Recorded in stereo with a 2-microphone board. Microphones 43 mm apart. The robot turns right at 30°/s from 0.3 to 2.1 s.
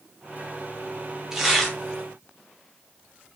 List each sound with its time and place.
1.3 s tearing paper: 10° right (ahead or behind), 0.7 m; by 1.8 s centre (ahead or behind), 0.7 m